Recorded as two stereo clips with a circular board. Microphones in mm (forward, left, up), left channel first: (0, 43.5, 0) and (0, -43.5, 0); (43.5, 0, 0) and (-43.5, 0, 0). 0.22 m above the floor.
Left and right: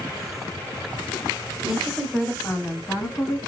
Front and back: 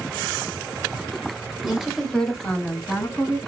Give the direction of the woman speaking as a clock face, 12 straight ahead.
4 o'clock.